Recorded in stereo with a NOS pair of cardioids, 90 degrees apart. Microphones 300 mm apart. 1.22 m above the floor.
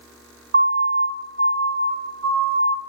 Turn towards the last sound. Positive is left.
turn(degrees=-50)